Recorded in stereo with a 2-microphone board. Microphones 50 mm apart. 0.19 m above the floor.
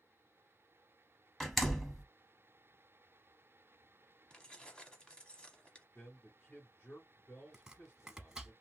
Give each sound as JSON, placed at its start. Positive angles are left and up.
{"t": 1.4, "sound": "a door slam", "side_deg": 5, "distance_m": 0.8}
{"t": 4.3, "sound": "keys jangling", "side_deg": 20, "distance_m": 0.7}
{"t": 6.0, "sound": "a man speaking", "side_deg": 40, "distance_m": 1.9}
{"t": 7.5, "sound": "chopping", "side_deg": -15, "distance_m": 0.7}